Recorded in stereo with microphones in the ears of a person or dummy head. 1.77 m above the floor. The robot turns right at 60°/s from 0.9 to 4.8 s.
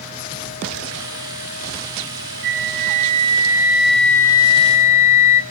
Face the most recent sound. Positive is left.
turn(degrees=55)